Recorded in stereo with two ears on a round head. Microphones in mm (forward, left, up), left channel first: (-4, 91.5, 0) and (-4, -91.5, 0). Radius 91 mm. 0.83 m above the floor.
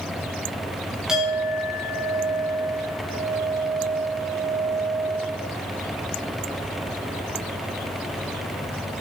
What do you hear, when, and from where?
1.1 s a clink: 5° right (ahead or behind), 3 m